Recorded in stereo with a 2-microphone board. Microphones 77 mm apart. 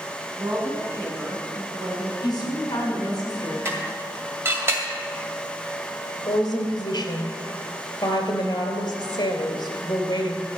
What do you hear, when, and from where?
0.4 s a woman speaking: 35° right (ahead or behind), 3.5 m
2.2 s a woman speaking: 55° left (ahead or behind), 5 m
3.6 s dishes clattering: 30° right (ahead or behind), 2 m
6.2 s a woman speaking: 70° left (ahead or behind), 2.5 m